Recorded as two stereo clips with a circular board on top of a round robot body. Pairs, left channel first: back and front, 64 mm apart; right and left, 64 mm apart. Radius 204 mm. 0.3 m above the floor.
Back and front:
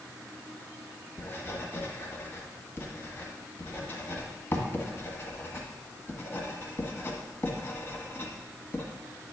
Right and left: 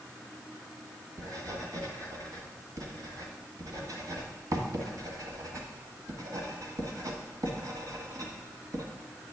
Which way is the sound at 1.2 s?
125° left.